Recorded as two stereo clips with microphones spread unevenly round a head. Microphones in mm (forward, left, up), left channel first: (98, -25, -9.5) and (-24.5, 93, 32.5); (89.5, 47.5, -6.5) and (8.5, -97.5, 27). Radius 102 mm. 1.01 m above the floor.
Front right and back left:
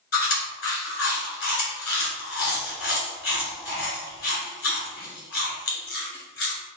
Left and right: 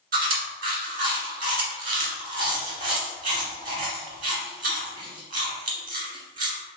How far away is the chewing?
About 1.7 m.